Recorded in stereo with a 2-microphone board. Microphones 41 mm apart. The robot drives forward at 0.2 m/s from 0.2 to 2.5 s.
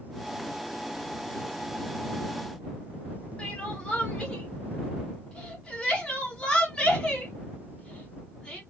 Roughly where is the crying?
Left.